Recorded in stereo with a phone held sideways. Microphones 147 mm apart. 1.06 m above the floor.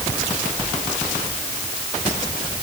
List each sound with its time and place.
Only background noise.